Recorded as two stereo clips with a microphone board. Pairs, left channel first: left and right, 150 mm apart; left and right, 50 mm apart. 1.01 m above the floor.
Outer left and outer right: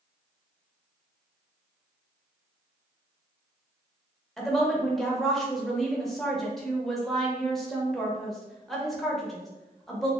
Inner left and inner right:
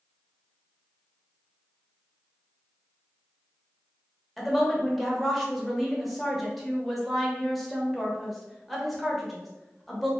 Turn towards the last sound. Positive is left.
turn(degrees=0)  # may be behind; listen again after turning